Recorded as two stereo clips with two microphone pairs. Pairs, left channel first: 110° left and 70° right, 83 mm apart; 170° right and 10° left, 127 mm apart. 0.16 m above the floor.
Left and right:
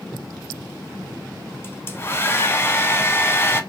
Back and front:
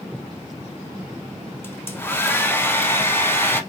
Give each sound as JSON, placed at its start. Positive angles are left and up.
{"t": 1.6, "sound": "a hair dryer", "azimuth_deg": 140, "distance_m": 0.6}